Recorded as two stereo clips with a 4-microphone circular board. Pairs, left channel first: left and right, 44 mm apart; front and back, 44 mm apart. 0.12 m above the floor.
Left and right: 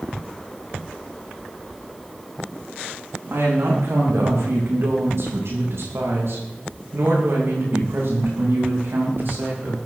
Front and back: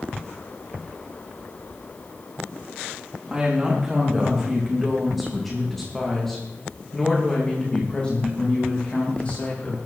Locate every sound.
3.3 s a woman speaking: 105° right, 8 m; by 9.8 s 55° right, 8 m